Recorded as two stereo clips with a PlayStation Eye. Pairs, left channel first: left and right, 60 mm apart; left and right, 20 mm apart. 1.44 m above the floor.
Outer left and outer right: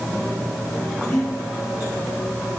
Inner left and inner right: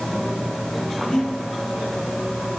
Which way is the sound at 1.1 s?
60° left (ahead or behind).